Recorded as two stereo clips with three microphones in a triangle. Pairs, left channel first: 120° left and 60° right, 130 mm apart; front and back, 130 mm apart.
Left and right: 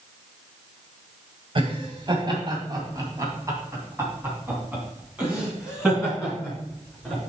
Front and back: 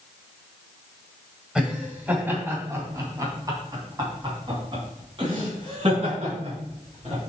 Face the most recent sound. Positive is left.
turn(degrees=-150)